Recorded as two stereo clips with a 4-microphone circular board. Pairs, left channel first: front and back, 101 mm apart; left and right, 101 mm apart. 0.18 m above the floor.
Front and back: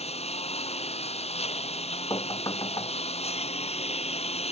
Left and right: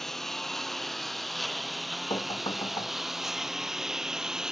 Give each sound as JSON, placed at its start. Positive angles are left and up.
{"t": 0.0, "sound": "a lawn mower", "azimuth_deg": 5}
{"t": 2.1, "sound": "knocking", "azimuth_deg": 55}